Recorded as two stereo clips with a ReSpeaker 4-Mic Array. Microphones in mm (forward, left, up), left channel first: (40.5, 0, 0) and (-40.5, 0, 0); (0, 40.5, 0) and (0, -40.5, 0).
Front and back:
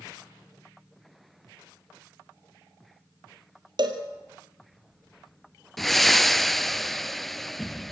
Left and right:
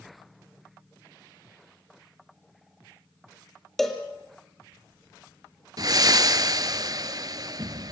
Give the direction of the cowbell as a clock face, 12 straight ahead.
6 o'clock.